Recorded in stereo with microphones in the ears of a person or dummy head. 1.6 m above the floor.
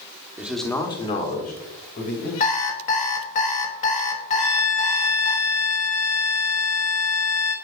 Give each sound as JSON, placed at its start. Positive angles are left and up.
{"t": 0.4, "sound": "a man speaking", "side_deg": -20, "distance_m": 1.0}
{"t": 2.4, "sound": "an alarm clock", "side_deg": 30, "distance_m": 1.2}
{"t": 4.4, "sound": "a violin", "side_deg": 20, "distance_m": 1.5}